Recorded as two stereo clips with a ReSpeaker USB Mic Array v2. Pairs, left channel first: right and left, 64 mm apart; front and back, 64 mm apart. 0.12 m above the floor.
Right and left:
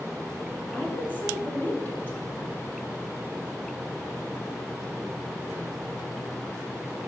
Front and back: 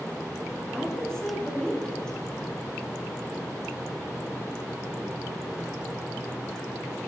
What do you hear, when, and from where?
0.7 s a woman speaking: 65° right, 1.6 m